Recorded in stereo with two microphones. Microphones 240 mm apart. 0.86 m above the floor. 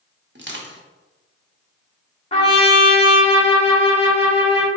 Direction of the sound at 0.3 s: 50° right (ahead or behind).